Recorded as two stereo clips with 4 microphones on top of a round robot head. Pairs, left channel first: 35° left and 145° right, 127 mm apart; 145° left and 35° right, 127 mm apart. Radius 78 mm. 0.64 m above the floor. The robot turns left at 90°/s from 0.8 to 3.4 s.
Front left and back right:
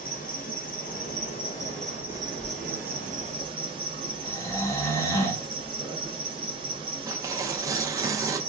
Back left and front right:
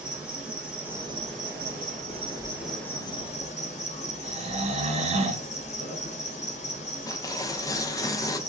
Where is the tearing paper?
Straight behind, 0.6 m.